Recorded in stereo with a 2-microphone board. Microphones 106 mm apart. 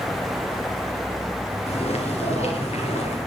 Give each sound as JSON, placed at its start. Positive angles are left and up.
{"t": 1.7, "sound": "footsteps", "side_deg": 70, "distance_m": 8.5}